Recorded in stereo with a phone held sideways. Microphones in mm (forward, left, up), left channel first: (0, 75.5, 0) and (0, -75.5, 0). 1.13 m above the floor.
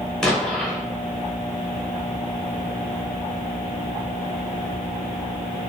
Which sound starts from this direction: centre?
An explosion, at 0.2 s.